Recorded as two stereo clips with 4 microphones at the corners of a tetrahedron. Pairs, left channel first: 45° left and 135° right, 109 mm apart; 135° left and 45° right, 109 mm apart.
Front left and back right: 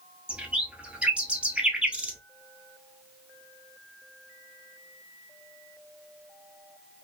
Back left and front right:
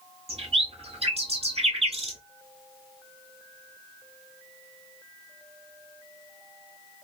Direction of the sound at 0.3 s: 55° right.